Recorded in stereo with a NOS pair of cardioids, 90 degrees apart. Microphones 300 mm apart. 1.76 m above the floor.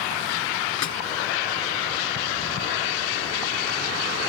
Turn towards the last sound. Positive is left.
turn(degrees=70)